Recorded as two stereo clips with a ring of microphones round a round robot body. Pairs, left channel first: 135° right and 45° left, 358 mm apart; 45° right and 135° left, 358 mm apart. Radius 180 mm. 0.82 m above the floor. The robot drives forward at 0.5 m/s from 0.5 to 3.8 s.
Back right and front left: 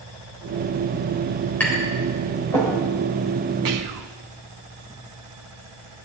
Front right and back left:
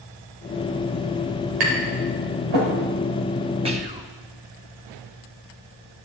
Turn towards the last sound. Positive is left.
turn(degrees=65)